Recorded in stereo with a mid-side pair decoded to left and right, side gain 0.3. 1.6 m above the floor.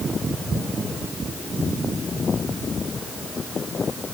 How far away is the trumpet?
No trumpet in this recording.